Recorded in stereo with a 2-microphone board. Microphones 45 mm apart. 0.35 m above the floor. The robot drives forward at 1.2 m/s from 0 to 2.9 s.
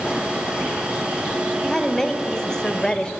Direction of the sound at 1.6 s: 10° left (ahead or behind).